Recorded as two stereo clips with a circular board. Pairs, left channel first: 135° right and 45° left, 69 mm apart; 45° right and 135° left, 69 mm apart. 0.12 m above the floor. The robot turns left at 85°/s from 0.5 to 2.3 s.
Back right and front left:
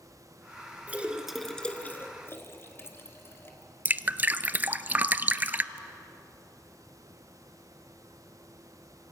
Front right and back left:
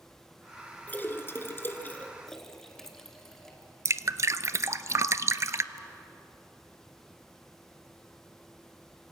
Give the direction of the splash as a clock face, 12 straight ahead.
12 o'clock.